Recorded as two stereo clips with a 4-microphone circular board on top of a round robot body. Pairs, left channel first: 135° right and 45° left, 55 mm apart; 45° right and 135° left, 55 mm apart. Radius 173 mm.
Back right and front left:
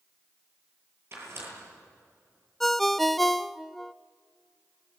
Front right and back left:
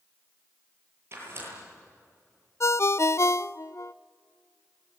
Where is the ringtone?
45° right, 0.6 m.